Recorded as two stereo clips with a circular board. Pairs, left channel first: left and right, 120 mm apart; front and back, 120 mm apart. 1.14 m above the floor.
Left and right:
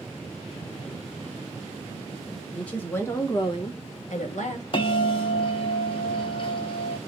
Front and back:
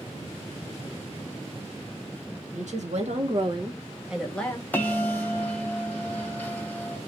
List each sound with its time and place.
2.5 s a woman speaking: 170° left, 1.4 m; by 4.6 s 70° left, 1.0 m
4.7 s a bell: 70° left, 0.7 m